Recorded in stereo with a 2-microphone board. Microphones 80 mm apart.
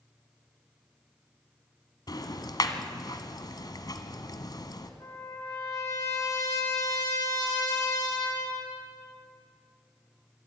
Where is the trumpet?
45° left (ahead or behind), 8 m.